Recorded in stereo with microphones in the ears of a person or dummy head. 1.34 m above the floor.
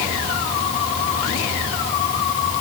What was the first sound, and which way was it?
Only background noise.